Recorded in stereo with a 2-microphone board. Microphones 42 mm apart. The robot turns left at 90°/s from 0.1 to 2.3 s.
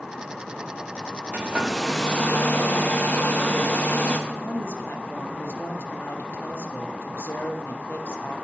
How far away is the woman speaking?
About 0.7 m.